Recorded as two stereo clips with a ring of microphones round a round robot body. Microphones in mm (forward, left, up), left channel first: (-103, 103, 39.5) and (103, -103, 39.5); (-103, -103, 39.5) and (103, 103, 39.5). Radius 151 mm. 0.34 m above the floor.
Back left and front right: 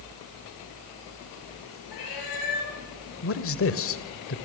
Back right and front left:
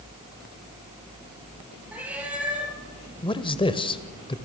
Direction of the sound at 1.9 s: 130° left.